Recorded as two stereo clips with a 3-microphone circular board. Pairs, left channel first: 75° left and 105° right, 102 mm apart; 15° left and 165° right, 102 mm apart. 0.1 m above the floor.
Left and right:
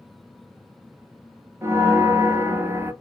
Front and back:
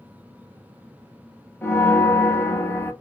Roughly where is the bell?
Ahead right.